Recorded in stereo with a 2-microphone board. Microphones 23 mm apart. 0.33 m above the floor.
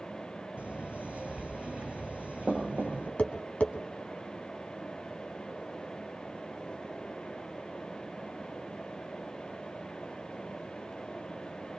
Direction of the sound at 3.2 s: 70° left (ahead or behind).